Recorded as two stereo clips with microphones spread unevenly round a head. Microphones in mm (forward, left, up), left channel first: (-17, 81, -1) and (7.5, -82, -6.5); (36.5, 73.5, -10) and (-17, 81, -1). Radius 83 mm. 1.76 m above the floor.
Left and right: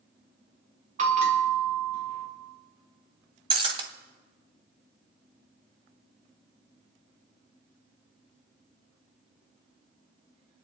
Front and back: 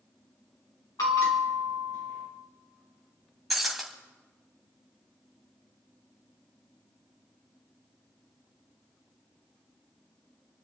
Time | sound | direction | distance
1.0 | a bell | 35° right | 3.5 m
3.5 | breaking glass | 115° right | 1.9 m